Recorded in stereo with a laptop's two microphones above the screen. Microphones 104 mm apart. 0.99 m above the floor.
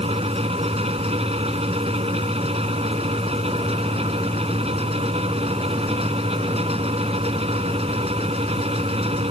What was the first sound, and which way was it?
A fan, 75° right (ahead or behind).